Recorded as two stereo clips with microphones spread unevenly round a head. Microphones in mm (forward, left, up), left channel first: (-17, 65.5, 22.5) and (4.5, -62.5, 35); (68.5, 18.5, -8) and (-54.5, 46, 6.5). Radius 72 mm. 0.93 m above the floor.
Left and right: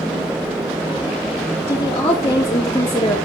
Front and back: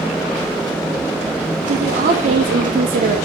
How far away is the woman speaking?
About 2.5 m.